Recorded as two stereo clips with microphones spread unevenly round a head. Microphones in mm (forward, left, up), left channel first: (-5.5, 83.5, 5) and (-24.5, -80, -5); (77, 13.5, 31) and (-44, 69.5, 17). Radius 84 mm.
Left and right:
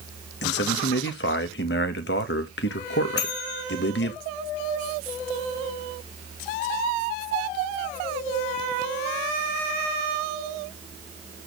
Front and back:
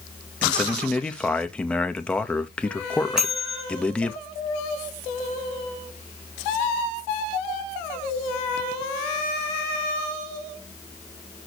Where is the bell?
70° left, 4 m.